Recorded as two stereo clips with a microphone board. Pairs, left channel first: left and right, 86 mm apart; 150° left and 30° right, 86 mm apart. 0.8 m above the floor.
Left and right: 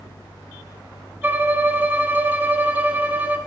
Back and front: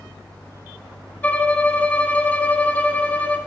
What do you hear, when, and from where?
1.2 s a violin: 145° right, 0.8 m